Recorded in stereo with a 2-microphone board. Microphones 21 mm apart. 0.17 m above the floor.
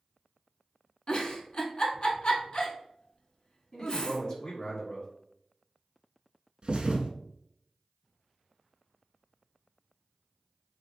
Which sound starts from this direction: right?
A thud, at 6.6 s.